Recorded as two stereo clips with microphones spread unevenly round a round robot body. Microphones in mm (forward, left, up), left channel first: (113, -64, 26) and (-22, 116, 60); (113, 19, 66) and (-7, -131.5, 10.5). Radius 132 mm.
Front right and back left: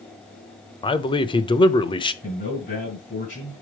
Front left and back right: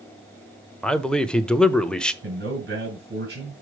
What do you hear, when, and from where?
0.8 s a man speaking: 60° right, 0.9 m
2.2 s a man speaking: 115° right, 4.5 m